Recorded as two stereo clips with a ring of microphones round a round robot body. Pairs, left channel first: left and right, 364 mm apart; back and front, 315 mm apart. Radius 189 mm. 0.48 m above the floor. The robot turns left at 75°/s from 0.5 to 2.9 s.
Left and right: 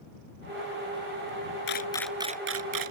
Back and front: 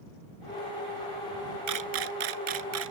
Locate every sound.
1.7 s a camera shutter: 30° left; by 2.9 s 60° right